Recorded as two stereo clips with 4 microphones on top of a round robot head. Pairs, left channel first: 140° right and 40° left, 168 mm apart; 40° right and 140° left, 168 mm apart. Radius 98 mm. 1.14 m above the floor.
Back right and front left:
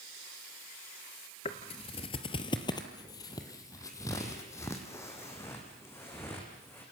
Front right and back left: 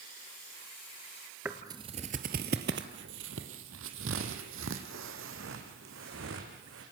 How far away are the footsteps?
About 1.2 m.